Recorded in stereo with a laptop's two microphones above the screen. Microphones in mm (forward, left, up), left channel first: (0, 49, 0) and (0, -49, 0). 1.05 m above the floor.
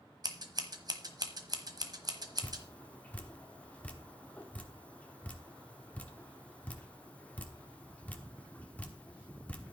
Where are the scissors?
45° right (ahead or behind), 1.1 m.